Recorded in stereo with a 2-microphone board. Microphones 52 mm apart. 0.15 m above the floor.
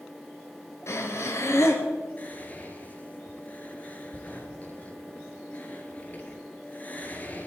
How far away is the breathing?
About 2 m.